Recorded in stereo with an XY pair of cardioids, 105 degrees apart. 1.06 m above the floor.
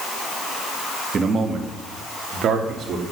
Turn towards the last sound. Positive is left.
turn(degrees=-65)